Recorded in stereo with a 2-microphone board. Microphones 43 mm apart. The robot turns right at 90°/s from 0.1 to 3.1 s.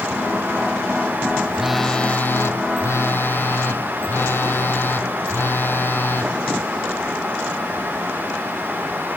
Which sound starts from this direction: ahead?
A phone buzzing, at 1.5 s.